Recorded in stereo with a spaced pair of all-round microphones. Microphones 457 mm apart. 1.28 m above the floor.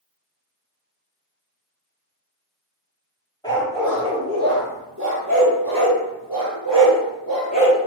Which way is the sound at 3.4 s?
10° left (ahead or behind).